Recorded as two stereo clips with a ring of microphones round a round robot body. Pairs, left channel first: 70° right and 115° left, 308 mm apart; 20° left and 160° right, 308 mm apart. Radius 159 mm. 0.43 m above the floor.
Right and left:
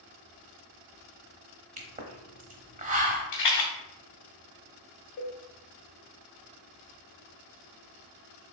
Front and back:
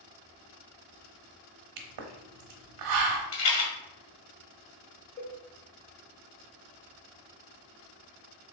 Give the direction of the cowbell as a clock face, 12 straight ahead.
1 o'clock.